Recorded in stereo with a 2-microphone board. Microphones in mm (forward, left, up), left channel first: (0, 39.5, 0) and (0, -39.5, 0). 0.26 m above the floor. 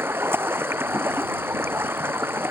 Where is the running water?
30° right (ahead or behind).